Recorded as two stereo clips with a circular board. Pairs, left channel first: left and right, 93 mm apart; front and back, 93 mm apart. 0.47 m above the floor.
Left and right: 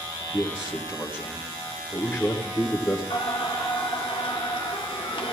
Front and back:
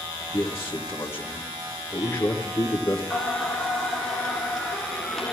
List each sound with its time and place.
0.3 s a man speaking: 35° left, 1.3 m
3.1 s singing: 90° left, 1.5 m